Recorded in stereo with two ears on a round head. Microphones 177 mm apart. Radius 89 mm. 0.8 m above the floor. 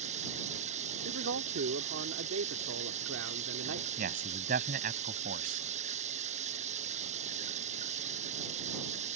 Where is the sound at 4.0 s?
45° right (ahead or behind).